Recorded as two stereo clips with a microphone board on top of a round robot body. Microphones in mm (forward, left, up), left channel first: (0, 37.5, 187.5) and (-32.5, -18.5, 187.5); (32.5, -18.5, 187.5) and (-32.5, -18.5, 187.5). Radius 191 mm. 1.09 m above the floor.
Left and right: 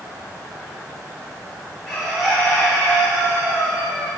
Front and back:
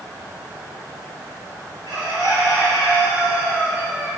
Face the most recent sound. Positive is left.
turn(degrees=150)